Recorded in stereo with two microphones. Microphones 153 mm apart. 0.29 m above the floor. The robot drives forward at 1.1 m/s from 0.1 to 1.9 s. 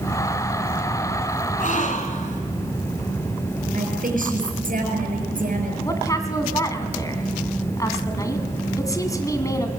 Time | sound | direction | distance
1.6 | a gasp | 60° left (ahead or behind) | 2.5 m
3.7 | a woman speaking | 60° right (ahead or behind) | 6 m
5.8 | a woman speaking | 20° left (ahead or behind) | 2.5 m